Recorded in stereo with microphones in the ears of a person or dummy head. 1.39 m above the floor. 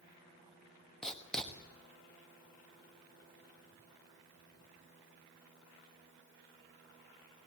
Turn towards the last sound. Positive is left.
turn(degrees=5)  # may be behind; listen again after turning